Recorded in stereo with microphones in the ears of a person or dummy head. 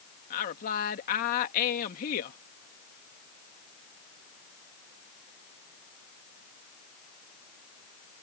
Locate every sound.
0.3 s a woman speaking: 45° left (ahead or behind)